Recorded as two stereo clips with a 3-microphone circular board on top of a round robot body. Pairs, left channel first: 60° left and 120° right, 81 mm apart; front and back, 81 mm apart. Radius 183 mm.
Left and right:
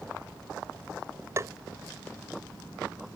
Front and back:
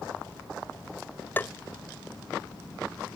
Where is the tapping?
65° right.